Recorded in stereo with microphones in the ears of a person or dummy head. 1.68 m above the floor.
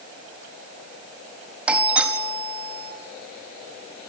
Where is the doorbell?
10° right (ahead or behind), 4.5 m.